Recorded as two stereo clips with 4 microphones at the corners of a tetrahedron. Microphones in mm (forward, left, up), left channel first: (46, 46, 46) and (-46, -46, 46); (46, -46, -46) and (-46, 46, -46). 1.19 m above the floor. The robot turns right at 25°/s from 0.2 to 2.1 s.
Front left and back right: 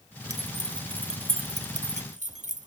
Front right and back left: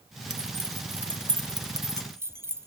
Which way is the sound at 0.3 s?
160° left.